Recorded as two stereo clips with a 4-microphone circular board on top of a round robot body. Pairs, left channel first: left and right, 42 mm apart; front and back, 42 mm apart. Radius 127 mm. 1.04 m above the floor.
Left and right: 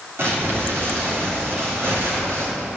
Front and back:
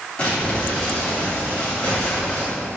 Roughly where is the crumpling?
Ahead right.